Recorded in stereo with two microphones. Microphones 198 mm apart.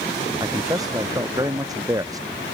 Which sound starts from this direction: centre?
A man speaking, at 0.4 s.